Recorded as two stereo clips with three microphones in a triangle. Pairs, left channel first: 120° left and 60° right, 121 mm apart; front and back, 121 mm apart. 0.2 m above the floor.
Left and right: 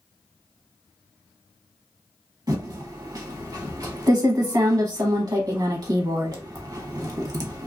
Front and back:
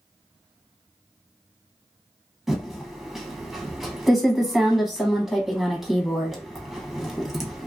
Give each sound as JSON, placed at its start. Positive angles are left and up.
{"t": 2.5, "sound": "typing on a keyboard", "azimuth_deg": -95, "distance_m": 0.8}